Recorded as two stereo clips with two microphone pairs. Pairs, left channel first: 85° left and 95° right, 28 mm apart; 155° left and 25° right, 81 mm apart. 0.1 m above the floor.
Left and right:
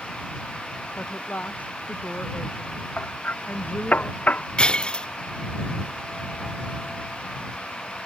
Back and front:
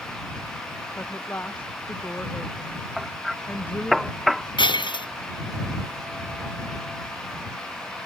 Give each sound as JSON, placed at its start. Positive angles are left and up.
{"t": 1.0, "sound": "a woman speaking", "azimuth_deg": 90}
{"t": 3.0, "sound": "hammering", "azimuth_deg": 60}
{"t": 4.6, "sound": "breaking glass", "azimuth_deg": 140}